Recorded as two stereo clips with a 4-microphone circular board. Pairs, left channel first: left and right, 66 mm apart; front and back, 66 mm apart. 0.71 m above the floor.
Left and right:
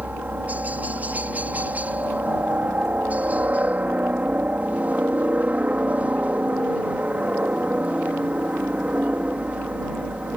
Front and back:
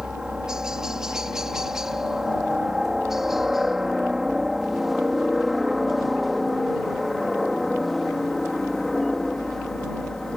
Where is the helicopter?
115° right; by 10.4 s 75° right.